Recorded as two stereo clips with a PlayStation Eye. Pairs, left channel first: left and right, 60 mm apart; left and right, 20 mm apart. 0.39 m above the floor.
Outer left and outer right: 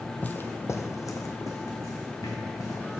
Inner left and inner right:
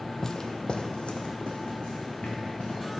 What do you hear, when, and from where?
0.2 s footsteps: 25° left (ahead or behind), 0.5 m; by 3.0 s 80° left, 2.5 m